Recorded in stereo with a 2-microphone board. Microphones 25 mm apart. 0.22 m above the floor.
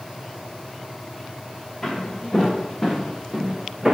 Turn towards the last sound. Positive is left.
turn(degrees=-20)  # may be behind; listen again after turning